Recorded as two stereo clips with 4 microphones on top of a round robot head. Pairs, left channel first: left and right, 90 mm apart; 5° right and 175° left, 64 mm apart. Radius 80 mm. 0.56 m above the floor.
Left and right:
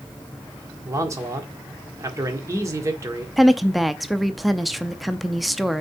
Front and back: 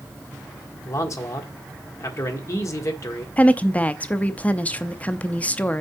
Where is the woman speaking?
Straight ahead, 0.6 m.